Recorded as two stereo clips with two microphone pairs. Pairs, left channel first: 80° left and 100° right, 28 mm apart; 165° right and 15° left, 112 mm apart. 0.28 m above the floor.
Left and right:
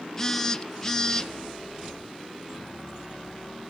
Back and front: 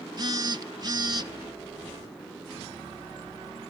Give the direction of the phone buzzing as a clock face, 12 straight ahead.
12 o'clock.